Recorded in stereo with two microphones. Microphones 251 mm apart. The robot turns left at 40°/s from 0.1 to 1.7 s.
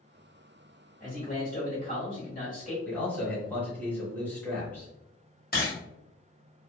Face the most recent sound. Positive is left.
turn(degrees=40)  # may be behind; listen again after turning